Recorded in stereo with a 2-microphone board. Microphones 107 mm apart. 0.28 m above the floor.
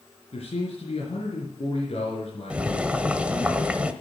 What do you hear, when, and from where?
0.3 s a man speaking: 75° left (ahead or behind), 4 m
2.5 s boiling: 10° right (ahead or behind), 0.9 m